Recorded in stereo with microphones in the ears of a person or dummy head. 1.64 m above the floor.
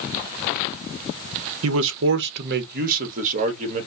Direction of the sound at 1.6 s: 85° right.